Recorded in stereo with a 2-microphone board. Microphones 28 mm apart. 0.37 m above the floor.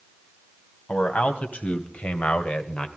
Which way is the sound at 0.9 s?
55° left (ahead or behind).